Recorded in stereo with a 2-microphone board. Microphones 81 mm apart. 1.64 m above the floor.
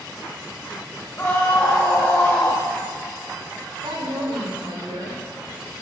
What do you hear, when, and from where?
1.2 s a scream: 25° left (ahead or behind), 1.8 m
3.8 s a woman speaking: 80° right, 5 m